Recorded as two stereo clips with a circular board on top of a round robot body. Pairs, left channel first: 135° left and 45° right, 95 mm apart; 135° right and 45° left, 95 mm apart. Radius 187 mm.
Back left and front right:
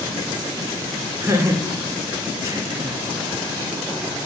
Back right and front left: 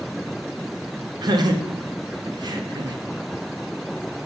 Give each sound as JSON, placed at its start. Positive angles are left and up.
{"t": 1.2, "sound": "laughter", "azimuth_deg": 10, "distance_m": 1.5}